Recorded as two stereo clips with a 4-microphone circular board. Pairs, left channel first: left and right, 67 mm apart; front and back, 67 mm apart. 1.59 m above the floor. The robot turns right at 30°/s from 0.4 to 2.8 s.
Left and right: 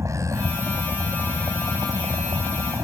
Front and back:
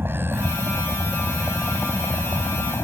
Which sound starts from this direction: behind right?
A vehicle, at 0.0 s.